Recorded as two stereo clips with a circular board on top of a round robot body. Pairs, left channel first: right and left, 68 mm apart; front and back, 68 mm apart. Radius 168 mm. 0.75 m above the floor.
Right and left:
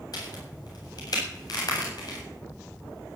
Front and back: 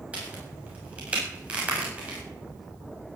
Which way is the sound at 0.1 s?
110° right.